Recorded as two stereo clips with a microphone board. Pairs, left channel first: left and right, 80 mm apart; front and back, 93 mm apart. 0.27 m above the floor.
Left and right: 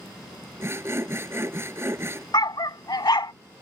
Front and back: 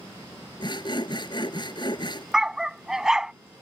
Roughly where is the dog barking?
Left.